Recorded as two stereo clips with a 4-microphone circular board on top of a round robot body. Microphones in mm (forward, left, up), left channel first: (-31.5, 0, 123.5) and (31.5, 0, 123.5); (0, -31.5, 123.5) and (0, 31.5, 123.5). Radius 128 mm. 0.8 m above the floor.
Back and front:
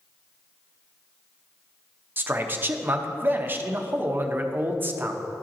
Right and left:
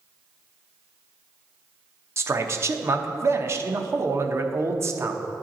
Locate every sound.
2.2 s a man speaking: 55° left, 0.8 m